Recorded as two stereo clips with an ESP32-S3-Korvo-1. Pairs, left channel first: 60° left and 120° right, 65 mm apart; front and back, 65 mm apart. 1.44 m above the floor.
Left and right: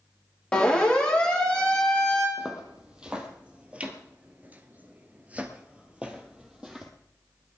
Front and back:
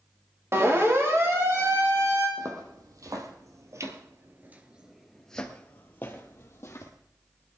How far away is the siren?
About 3 m.